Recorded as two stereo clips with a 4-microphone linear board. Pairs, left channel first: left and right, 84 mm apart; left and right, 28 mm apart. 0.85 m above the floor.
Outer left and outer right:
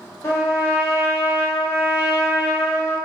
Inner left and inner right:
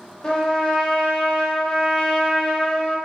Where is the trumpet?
30° left (ahead or behind), 1.1 m.